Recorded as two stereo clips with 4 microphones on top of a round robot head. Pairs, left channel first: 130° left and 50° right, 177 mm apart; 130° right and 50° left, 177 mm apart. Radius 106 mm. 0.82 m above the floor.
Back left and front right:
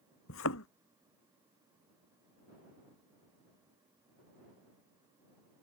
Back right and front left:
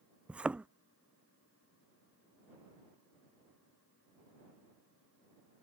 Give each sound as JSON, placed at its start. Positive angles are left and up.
{"t": 0.3, "sound": "a thud", "azimuth_deg": 130}